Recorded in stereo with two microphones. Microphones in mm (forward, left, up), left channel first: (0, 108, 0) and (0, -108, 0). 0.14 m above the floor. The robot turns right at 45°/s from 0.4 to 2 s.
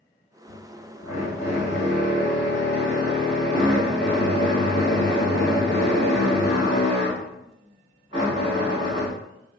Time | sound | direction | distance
0.5 | a drill | 10° left (ahead or behind) | 1.7 m